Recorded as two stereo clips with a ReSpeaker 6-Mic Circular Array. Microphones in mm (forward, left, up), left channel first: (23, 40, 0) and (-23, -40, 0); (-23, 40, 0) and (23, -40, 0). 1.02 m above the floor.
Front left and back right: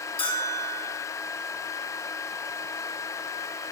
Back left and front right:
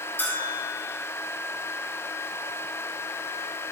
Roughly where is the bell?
Ahead left.